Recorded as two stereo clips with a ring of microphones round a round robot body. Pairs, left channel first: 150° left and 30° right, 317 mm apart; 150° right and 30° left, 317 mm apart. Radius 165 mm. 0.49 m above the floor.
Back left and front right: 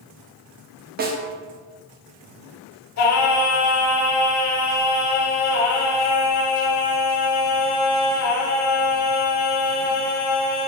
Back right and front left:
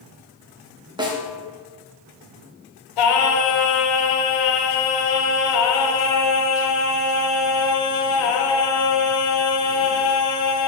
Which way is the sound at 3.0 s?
165° right.